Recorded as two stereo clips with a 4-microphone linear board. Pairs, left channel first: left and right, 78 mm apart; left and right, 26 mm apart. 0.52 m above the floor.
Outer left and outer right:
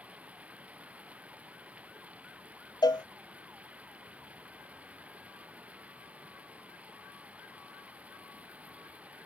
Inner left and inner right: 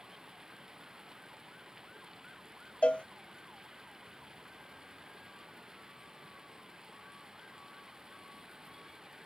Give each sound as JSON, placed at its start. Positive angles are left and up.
{"t": 0.0, "sound": "running water", "side_deg": -15}
{"t": 2.8, "sound": "a cowbell", "side_deg": 65}